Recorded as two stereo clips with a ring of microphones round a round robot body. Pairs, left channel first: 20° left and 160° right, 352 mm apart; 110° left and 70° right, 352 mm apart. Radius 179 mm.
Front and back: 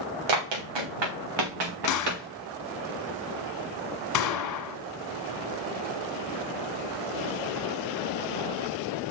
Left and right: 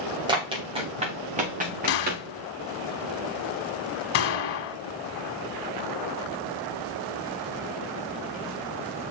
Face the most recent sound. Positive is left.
turn(degrees=65)